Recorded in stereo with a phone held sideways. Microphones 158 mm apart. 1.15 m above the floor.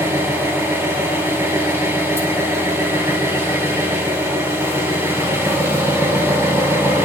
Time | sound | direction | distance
0.0 | an engine running | 15° right (ahead or behind) | 4.5 m